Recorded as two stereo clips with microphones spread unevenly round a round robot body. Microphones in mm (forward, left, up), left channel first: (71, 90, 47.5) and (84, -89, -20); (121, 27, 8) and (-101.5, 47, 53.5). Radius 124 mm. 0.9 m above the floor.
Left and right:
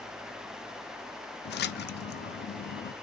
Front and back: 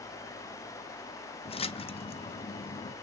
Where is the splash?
60° left, 0.7 m.